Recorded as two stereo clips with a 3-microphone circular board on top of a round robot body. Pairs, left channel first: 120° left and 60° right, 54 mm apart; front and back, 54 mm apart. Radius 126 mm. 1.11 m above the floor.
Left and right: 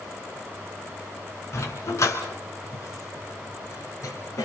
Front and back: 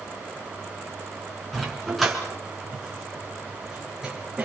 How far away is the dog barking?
About 3 m.